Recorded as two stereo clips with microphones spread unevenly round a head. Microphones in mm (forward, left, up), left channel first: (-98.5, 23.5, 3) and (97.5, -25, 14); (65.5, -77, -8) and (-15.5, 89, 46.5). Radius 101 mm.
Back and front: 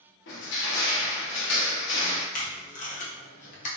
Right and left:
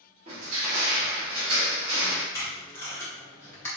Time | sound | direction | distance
0.3 | crushing | straight behind | 0.7 m
2.3 | tape being pulled | 140° right | 0.5 m